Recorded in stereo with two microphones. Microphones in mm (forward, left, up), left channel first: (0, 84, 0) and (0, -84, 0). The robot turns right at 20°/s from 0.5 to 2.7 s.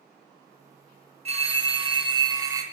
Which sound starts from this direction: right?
A phone ringing, at 1.2 s.